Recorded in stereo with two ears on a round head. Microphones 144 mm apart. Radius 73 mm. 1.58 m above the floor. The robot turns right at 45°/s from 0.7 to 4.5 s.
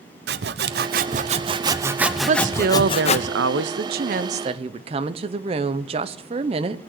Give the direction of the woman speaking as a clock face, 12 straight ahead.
5 o'clock.